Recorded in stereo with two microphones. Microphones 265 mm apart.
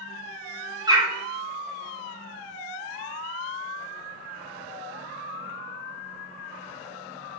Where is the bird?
15° right (ahead or behind), 0.7 m.